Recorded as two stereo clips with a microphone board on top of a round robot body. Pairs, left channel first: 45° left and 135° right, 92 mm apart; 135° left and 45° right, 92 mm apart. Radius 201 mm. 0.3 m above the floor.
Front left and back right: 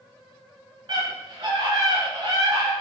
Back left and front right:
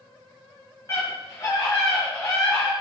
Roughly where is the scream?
Behind.